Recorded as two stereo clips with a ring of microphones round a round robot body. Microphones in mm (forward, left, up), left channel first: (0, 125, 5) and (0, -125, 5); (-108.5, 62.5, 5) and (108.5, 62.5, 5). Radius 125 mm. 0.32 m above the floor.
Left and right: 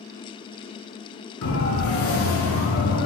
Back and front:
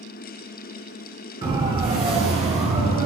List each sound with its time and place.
1.4 s a siren: 65° left, 6 m; by 3.1 s 60° left, 7 m